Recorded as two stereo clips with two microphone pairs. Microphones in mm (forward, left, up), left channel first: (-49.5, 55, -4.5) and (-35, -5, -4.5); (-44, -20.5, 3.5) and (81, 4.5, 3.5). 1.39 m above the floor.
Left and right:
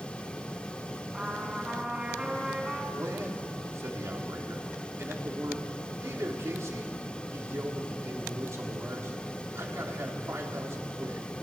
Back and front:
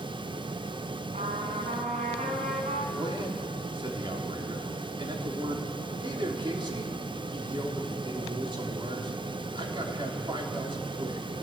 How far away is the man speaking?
About 3.5 m.